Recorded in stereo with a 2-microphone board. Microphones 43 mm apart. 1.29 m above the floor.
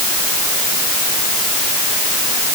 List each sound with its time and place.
Only background noise.